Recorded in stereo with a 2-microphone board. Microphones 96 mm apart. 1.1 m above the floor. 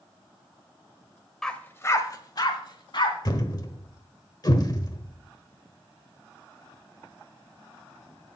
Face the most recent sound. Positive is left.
turn(degrees=45)  # may be behind; listen again after turning